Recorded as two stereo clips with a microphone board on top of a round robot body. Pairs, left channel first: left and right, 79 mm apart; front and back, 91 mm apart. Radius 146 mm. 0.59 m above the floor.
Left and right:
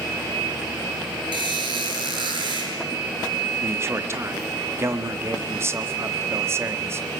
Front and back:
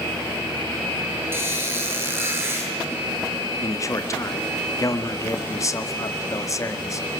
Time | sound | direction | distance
1.3 | a squeak | 115° right | 7.5 m
3.6 | a man speaking | 45° right | 1.9 m